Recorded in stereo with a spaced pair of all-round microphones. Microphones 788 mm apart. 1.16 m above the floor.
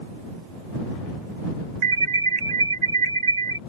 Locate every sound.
1.8 s an alarm: 60° right (ahead or behind)